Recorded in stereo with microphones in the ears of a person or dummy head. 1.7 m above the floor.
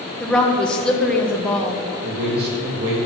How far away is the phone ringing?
No phone ringing in this recording.